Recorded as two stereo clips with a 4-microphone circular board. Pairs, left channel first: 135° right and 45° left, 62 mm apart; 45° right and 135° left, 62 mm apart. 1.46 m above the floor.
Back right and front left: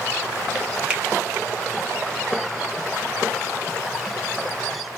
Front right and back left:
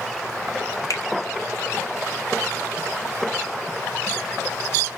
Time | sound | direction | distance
0.9 | a finger snap | 25° right | 0.8 m